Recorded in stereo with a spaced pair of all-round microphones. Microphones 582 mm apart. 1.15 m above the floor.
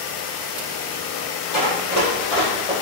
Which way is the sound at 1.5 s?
45° left (ahead or behind).